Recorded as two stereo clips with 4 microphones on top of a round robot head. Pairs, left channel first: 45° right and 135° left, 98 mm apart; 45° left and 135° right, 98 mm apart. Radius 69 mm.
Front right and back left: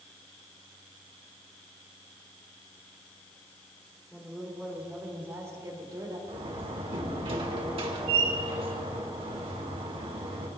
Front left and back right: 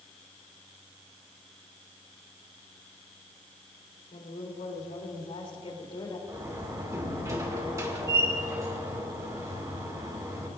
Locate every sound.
4.1 s a woman speaking: 40° left, 3.5 m; by 6.2 s 90° left, 4 m
6.3 s a door slam: 170° left, 2 m